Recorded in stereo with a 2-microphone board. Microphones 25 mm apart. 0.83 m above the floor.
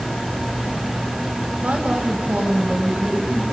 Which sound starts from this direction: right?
A woman speaking, at 1.6 s.